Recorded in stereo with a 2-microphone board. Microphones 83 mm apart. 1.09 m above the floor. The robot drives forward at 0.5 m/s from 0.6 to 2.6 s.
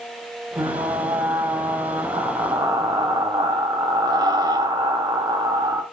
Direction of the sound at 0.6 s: 70° right (ahead or behind).